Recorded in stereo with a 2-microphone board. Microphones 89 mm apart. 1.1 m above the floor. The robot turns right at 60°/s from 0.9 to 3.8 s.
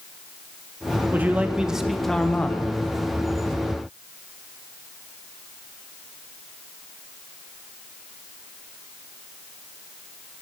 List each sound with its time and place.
1.1 s a man speaking: 20° right (ahead or behind), 0.6 m; by 2.8 s 20° left (ahead or behind), 0.6 m